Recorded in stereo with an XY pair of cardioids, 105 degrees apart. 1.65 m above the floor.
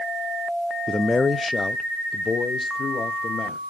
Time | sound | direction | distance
0.9 | a man speaking | 15° left | 0.5 m